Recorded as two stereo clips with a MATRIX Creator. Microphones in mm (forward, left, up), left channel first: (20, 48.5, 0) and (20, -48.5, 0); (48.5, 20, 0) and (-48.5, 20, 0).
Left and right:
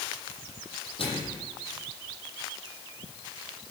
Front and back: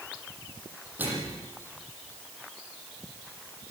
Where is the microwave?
105° left, 8 m.